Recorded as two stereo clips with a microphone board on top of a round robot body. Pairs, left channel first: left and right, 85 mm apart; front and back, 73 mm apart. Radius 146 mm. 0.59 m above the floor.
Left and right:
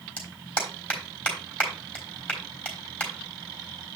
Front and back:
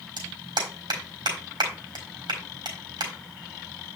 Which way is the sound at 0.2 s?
165° left.